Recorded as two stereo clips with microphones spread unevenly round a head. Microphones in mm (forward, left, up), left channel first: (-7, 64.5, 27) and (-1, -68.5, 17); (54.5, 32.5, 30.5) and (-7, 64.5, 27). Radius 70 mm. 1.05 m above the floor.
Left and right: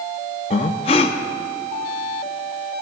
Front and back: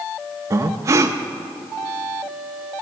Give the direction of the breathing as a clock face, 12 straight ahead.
8 o'clock.